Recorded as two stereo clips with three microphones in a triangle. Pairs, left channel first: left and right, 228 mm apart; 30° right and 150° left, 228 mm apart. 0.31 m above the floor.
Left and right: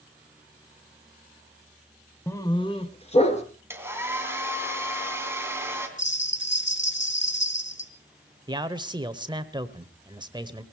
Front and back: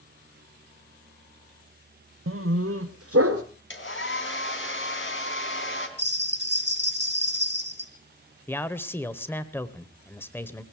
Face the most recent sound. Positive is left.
turn(degrees=-90)